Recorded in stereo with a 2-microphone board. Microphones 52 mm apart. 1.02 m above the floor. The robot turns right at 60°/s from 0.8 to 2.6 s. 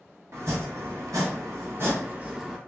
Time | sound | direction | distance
0.3 | chopping | 110° right | 1.1 m